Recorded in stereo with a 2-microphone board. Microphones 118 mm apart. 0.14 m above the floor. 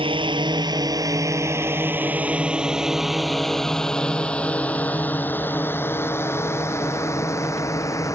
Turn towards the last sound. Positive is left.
turn(degrees=25)  # may be behind; listen again after turning